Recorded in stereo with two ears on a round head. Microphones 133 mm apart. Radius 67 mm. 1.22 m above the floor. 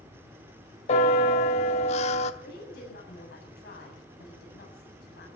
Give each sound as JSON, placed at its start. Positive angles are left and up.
{"t": 0.9, "sound": "a bell", "side_deg": 45, "distance_m": 0.9}
{"t": 2.4, "sound": "a woman speaking", "side_deg": 80, "distance_m": 8.5}